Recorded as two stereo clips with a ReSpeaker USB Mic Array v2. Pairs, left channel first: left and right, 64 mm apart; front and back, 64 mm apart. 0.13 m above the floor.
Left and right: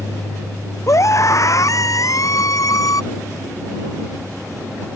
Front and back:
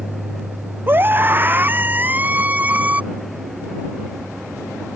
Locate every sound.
0.9 s a scream: 125° left; by 3.0 s 115° left